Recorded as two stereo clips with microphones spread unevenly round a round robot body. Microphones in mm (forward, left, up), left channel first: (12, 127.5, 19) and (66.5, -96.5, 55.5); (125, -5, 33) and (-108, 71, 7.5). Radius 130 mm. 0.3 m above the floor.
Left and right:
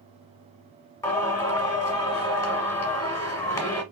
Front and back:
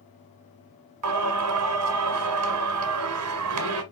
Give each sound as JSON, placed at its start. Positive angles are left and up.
{"t": 1.0, "sound": "singing", "azimuth_deg": 180, "distance_m": 1.2}